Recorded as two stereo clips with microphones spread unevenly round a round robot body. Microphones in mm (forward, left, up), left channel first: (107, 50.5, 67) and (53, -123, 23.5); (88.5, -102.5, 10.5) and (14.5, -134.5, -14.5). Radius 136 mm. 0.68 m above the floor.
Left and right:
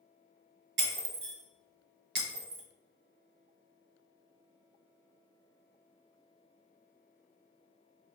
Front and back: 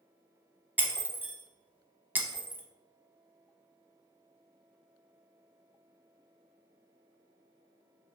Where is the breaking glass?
80° right, 0.9 m.